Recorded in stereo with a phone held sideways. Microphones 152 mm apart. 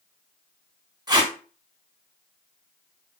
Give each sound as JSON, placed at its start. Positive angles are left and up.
{"t": 1.1, "sound": "tape being pulled", "side_deg": -25, "distance_m": 0.6}